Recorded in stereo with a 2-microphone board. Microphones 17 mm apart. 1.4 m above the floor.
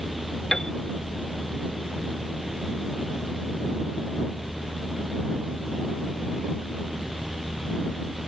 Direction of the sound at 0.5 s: 30° left (ahead or behind).